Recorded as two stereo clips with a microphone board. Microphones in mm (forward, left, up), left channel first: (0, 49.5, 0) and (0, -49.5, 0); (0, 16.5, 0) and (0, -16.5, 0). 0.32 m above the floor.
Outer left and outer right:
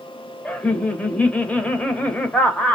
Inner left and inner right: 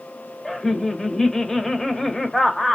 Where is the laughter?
15° left (ahead or behind), 0.9 m.